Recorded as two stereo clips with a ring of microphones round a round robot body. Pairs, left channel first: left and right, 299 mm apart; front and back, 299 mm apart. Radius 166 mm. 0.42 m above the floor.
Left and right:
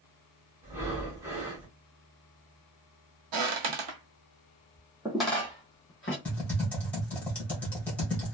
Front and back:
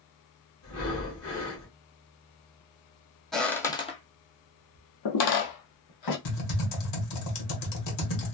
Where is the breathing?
10° right, 1.4 m.